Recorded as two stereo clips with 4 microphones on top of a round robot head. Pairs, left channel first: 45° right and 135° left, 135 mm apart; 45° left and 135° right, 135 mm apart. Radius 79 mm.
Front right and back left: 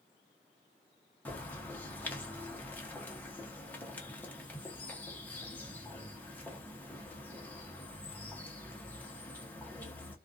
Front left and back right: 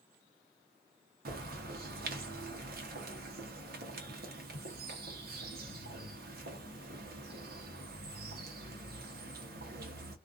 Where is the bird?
125° right, 0.8 m.